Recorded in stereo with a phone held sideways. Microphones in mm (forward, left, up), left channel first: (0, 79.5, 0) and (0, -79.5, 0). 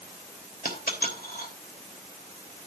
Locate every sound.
0.7 s a dropped coin: 65° left (ahead or behind), 3 m